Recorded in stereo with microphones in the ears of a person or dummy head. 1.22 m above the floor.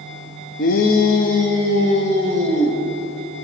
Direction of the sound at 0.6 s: 40° left (ahead or behind).